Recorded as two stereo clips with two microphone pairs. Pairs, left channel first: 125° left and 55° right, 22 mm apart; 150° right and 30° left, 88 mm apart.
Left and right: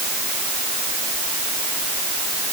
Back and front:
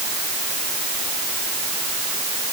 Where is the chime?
No chime in this recording.